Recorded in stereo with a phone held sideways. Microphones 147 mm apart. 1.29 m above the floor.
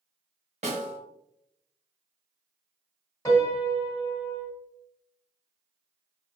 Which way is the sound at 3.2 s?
20° left (ahead or behind).